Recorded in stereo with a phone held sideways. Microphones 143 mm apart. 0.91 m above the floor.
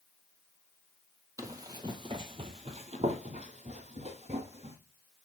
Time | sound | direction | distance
1.4 | running footsteps | 20° right (ahead or behind) | 1.3 m